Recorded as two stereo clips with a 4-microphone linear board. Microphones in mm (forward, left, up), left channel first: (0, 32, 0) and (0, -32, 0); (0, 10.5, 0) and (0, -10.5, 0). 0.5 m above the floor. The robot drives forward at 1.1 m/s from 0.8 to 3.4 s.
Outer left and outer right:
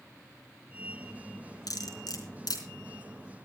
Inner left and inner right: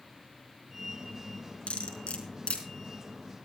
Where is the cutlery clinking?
75° left (ahead or behind), 4 m; by 2.6 s 85° left, 4 m.